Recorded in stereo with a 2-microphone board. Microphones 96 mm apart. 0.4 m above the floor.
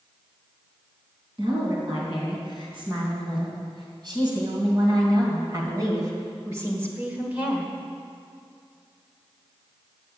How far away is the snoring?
No snoring in this recording.